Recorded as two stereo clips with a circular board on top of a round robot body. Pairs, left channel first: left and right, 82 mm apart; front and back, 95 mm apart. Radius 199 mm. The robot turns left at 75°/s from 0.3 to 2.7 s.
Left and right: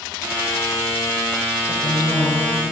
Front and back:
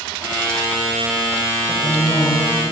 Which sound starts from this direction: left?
A woman speaking, at 1.7 s.